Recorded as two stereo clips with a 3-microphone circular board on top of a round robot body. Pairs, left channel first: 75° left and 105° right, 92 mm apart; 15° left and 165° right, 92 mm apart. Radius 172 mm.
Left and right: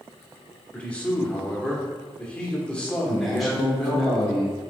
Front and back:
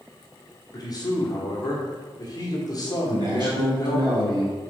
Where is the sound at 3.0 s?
165° left, 1.9 m.